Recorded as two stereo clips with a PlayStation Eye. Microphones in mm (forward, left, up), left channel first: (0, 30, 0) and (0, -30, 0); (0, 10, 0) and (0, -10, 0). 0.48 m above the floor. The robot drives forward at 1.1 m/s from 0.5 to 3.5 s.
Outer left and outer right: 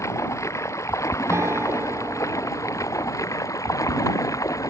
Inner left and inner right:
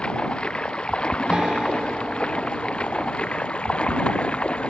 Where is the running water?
55° left (ahead or behind); by 4.7 s 65° left (ahead or behind).